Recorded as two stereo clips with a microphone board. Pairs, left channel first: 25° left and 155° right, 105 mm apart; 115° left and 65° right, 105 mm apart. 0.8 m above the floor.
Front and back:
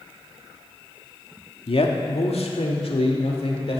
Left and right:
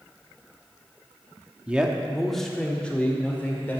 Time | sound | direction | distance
1.7 | a man speaking | 10° left | 1.2 m